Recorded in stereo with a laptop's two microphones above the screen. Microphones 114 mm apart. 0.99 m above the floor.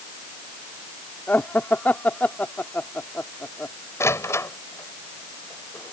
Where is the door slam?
25° left (ahead or behind).